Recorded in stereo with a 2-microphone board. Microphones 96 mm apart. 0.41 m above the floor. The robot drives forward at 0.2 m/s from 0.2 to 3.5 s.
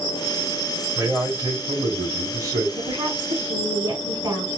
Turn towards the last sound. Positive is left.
turn(degrees=-40)  # may be behind; listen again after turning